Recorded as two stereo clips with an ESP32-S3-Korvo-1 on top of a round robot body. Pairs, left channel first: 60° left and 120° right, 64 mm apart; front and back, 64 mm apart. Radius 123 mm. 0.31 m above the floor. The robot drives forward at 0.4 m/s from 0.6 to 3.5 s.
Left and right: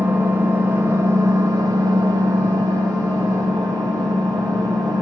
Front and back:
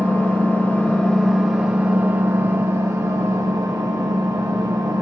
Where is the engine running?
65° right, 0.7 m; by 5.0 s 145° right, 1.1 m.